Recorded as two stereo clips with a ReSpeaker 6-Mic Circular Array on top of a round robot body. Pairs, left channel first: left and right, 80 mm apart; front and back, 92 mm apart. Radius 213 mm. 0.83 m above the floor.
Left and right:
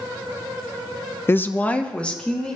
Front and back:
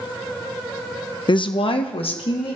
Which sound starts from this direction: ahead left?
A woman speaking, at 1.3 s.